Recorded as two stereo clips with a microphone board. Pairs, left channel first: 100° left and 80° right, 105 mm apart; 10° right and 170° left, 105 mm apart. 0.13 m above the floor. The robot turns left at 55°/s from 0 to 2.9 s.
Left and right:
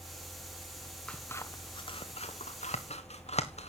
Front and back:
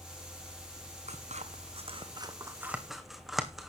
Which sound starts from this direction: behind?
Scissors, at 1.1 s.